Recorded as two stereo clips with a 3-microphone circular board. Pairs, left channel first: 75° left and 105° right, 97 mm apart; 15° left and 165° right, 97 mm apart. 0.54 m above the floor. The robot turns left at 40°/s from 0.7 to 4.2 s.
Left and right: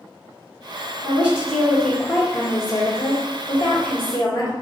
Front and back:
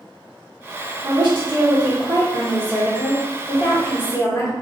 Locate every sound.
1.0 s a woman speaking: 170° right, 1.3 m; by 4.5 s 65° left, 1.3 m